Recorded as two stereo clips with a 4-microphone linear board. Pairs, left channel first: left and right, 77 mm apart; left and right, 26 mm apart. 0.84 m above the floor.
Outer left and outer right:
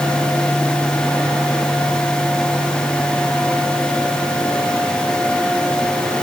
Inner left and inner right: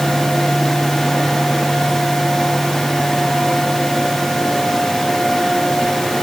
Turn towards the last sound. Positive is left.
No sound to turn to.